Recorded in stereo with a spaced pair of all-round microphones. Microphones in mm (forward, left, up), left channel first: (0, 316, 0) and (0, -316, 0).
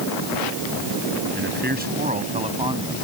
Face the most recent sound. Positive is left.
turn(degrees=-5)  # may be behind; listen again after turning